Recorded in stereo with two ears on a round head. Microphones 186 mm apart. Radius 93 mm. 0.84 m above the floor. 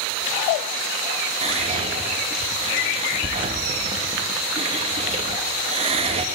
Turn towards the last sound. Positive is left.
turn(degrees=-25)  # may be behind; listen again after turning